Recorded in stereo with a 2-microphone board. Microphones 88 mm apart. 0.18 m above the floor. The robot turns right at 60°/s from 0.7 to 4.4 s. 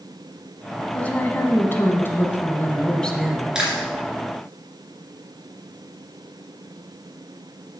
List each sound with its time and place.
0.9 s a woman speaking: 15° left (ahead or behind), 1.1 m; by 3.6 s 5° right (ahead or behind), 1.1 m
3.5 s chewing: 10° right (ahead or behind), 2.5 m; by 3.9 s 10° left (ahead or behind), 2.5 m